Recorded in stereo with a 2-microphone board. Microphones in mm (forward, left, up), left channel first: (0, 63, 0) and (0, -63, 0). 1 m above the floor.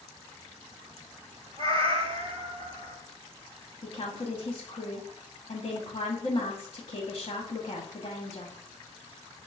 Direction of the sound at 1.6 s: 50° right (ahead or behind).